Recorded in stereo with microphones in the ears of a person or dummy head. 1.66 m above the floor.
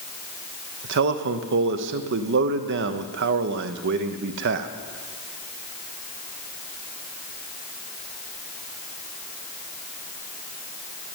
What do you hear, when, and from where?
0.8 s a man speaking: 60° right (ahead or behind), 0.8 m